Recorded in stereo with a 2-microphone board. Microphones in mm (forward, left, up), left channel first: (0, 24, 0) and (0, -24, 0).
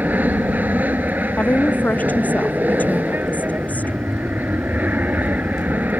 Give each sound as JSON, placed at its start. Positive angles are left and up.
{"t": 0.0, "sound": "an aircraft", "side_deg": -40}
{"t": 1.4, "sound": "a woman speaking", "side_deg": 35}